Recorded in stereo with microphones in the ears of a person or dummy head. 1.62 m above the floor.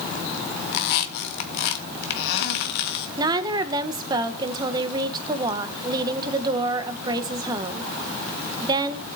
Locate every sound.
0.7 s a squeak: 65° left (ahead or behind), 1.6 m
3.2 s a woman speaking: 20° right (ahead or behind), 1.1 m